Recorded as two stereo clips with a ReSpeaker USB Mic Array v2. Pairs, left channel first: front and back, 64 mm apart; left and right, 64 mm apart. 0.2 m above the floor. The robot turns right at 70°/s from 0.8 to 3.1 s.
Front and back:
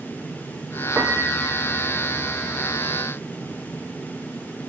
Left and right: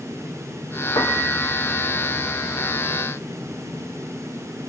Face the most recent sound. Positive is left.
turn(degrees=-105)